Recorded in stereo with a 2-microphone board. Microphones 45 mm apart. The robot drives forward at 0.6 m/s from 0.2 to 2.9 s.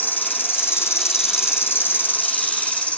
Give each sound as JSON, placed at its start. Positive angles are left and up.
{"t": 0.0, "sound": "an insect", "side_deg": 45, "distance_m": 0.9}